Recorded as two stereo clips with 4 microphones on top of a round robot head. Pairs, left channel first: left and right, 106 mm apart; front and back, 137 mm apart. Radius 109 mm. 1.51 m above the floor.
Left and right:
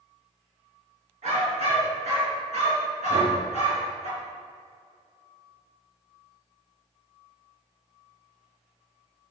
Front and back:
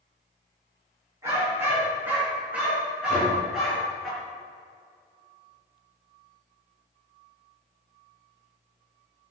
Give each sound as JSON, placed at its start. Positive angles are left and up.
{"t": 1.2, "sound": "a dog barking", "azimuth_deg": -105, "distance_m": 4.5}
{"t": 3.1, "sound": "knocking", "azimuth_deg": -70, "distance_m": 3.0}